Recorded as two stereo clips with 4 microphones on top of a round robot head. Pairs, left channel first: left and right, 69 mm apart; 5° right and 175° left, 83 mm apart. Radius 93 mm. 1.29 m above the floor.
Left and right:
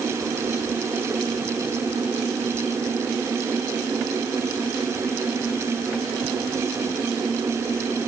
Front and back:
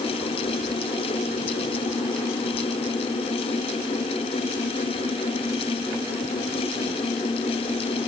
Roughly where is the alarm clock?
I don't hear an alarm clock.